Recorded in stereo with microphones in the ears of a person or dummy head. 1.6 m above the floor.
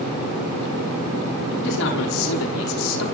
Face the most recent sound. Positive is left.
turn(degrees=85)